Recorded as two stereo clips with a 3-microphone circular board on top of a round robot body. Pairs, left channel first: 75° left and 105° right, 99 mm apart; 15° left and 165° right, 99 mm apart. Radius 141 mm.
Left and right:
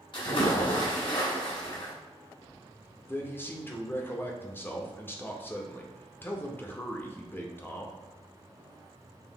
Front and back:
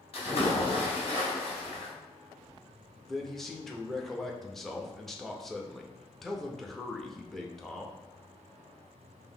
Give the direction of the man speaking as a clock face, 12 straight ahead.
9 o'clock.